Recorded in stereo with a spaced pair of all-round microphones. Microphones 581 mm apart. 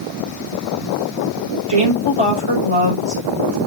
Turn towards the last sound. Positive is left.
turn(degrees=-60)  # may be behind; listen again after turning